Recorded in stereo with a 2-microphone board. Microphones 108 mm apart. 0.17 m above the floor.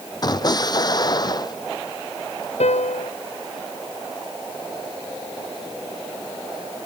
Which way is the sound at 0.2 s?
40° left (ahead or behind).